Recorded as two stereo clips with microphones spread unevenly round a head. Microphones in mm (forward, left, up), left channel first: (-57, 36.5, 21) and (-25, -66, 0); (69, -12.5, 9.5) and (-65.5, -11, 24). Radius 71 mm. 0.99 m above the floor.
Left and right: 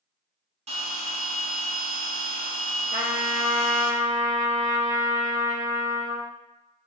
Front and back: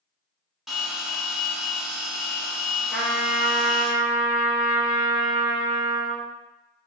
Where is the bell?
95° right, 1.1 m.